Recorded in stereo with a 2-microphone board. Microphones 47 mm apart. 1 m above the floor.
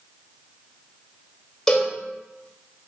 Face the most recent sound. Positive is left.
turn(degrees=15)  # may be behind; listen again after turning